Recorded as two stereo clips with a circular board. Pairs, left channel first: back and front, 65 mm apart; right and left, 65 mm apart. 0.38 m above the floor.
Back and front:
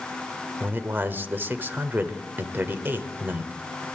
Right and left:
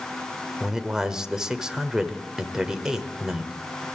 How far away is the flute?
I don't hear a flute.